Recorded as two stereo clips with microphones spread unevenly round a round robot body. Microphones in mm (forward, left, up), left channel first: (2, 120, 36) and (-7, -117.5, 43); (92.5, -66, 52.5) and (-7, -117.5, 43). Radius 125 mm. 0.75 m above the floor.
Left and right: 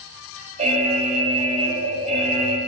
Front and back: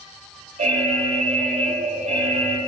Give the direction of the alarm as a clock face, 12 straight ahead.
5 o'clock.